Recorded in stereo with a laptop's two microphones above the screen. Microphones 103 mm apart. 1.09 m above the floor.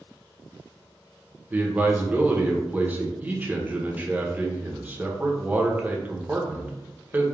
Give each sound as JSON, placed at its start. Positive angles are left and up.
{"t": 1.5, "sound": "a man speaking", "side_deg": -20, "distance_m": 0.6}